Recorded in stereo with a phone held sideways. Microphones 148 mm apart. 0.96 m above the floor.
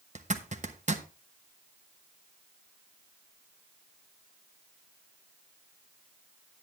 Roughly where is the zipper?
Right.